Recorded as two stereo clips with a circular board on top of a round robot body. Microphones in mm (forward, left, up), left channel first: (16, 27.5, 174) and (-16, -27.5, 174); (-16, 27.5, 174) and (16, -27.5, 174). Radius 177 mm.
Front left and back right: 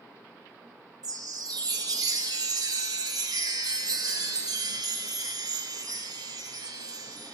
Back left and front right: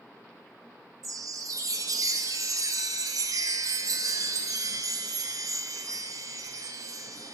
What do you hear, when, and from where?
1.0 s a chime: 100° right, 0.6 m